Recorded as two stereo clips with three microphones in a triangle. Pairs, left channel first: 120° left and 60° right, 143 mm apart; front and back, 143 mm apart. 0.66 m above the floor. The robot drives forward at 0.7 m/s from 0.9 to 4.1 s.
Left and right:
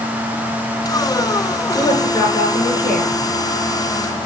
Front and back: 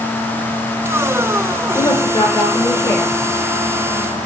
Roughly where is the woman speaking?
Ahead left.